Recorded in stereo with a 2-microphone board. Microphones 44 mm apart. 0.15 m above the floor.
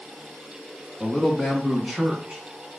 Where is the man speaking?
15° left (ahead or behind), 1.4 m; by 2.4 s 20° right (ahead or behind), 1.3 m.